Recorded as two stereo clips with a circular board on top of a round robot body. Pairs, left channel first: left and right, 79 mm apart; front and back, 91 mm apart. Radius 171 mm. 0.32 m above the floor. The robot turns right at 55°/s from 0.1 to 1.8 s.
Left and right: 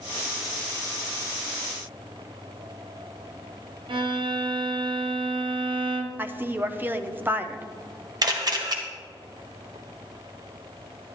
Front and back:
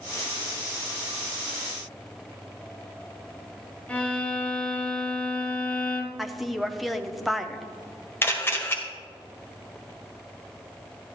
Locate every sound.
3.9 s a violin: 80° right, 0.9 m
6.2 s a woman speaking: 90° right, 0.8 m
8.2 s a camera shutter: 65° right, 1.7 m